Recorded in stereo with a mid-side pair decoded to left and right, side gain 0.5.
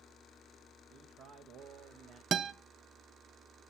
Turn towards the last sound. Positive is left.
turn(degrees=-50)